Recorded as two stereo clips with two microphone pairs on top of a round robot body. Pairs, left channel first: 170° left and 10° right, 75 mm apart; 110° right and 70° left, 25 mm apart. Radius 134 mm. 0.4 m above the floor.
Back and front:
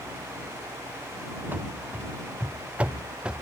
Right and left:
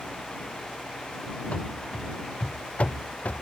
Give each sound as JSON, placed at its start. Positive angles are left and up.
{"t": 1.5, "sound": "running footsteps", "azimuth_deg": -75}